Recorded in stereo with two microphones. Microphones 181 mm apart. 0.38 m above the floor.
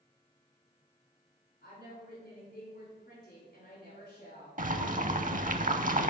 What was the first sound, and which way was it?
A woman speaking, 55° left (ahead or behind).